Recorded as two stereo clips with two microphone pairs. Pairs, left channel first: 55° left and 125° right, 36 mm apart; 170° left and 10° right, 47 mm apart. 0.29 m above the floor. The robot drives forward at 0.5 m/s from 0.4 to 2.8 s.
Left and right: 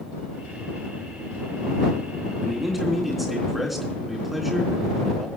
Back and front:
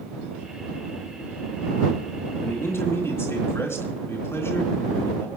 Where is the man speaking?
150° left, 3.5 m.